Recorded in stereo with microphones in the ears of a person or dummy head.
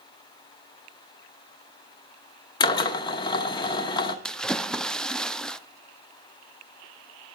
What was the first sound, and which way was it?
A drill, 25° left (ahead or behind).